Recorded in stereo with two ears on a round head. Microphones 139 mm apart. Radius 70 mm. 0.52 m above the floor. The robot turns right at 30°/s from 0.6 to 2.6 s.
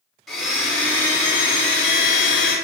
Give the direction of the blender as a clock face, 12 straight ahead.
12 o'clock.